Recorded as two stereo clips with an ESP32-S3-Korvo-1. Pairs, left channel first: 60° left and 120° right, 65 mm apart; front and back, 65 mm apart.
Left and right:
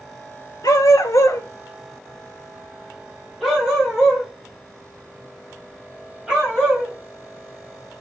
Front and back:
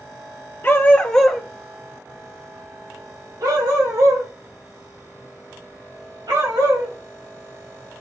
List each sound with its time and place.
0.6 s a dog barking: 55° left, 0.7 m; by 6.9 s 165° left, 3 m